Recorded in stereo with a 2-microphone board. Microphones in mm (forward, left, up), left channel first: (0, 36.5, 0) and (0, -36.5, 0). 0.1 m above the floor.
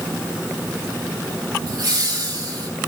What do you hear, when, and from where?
1.7 s laughter: 55° right (ahead or behind), 7 m